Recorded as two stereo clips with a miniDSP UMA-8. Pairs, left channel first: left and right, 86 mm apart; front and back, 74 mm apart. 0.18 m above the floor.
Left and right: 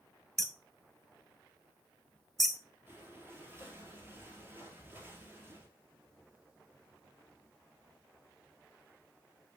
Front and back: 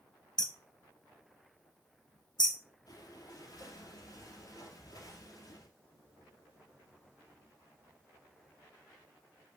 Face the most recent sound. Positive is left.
turn(degrees=-30)